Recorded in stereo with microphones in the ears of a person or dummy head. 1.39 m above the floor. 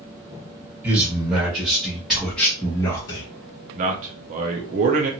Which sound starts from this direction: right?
A man speaking, at 3.8 s.